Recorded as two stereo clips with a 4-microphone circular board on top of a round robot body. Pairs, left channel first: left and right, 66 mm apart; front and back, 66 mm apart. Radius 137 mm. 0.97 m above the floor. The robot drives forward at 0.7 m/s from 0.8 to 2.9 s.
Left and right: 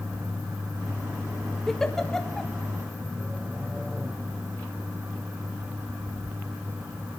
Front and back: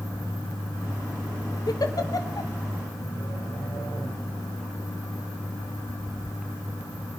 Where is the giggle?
5° left, 2 m; by 2.5 s 10° left, 1.5 m.